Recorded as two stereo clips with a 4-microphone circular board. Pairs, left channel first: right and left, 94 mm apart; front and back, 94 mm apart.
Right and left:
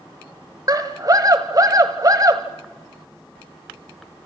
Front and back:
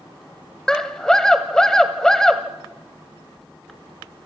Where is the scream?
80° left, 1.2 m.